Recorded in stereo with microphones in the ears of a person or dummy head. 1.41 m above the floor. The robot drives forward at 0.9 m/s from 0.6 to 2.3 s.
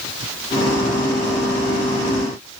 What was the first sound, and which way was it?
Only background noise.